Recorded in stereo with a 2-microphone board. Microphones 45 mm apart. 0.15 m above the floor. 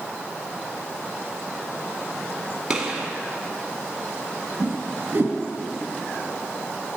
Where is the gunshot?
15° right (ahead or behind), 1.2 m.